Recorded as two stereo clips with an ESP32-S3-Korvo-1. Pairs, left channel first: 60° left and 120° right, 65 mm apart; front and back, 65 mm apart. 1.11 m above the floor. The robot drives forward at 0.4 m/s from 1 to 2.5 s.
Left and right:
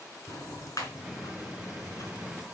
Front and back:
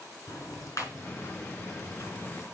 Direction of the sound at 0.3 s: 35° left.